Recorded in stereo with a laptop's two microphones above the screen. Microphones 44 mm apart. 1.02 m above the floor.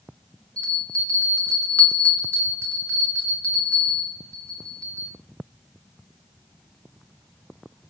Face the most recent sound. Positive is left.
turn(degrees=30)  # may be behind; listen again after turning